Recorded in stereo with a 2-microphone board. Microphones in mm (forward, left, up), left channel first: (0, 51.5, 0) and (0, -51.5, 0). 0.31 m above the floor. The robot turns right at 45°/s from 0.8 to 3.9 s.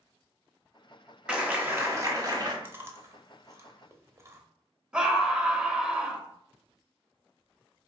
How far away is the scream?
About 1.0 m.